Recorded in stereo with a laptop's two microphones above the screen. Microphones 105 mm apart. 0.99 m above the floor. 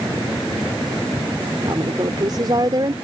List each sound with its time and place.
1.6 s a woman speaking: 40° right (ahead or behind)